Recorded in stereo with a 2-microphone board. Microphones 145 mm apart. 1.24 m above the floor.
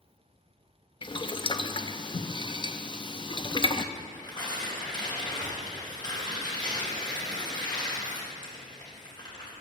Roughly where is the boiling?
Left.